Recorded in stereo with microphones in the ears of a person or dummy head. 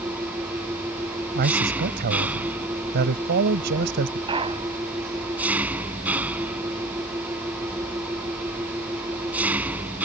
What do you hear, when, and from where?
0.0 s an engine running: 10° right (ahead or behind)
1.4 s a man speaking: 55° right (ahead or behind)
4.3 s a clunk: 30° right (ahead or behind)